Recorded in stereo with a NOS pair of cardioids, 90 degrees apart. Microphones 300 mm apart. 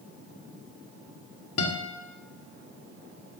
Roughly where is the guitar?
Ahead left.